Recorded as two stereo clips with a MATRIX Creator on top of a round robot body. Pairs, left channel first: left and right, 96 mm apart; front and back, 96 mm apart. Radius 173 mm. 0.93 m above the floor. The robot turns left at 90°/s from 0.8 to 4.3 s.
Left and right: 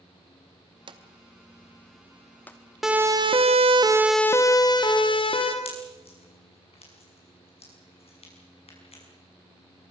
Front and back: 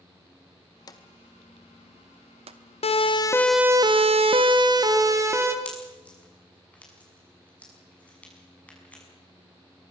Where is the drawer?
50° right, 0.8 m; by 2.6 s 155° left, 0.8 m.